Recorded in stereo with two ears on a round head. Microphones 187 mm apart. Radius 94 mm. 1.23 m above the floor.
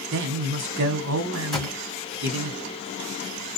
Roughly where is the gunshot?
Centre.